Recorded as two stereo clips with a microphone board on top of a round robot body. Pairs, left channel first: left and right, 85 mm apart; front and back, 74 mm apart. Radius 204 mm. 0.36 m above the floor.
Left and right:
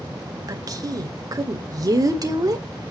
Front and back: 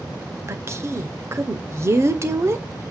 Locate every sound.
0.5 s a woman speaking: 130° right, 2.5 m